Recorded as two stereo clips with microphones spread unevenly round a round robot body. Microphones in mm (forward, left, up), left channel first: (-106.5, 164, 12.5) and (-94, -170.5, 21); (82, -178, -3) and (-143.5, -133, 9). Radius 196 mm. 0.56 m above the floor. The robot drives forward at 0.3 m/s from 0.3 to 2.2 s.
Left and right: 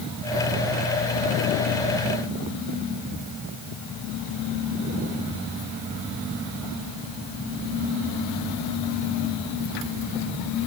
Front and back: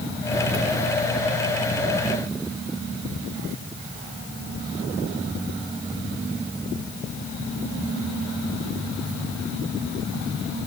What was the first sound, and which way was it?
Only background noise.